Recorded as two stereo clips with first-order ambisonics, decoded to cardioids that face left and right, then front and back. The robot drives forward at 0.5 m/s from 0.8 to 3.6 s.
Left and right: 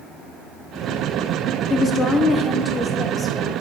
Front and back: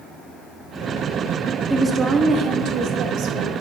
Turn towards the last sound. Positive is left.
turn(degrees=170)